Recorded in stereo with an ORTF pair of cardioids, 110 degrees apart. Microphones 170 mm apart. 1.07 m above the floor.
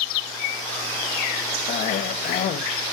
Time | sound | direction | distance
1.7 | a cough | 65° left | 1.5 m